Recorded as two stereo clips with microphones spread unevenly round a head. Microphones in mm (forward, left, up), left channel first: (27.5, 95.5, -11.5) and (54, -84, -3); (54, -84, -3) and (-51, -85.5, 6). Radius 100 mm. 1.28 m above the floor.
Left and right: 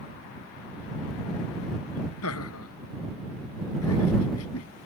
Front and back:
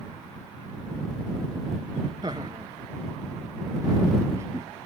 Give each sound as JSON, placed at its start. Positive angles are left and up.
{"t": 2.2, "sound": "laughter", "azimuth_deg": 110}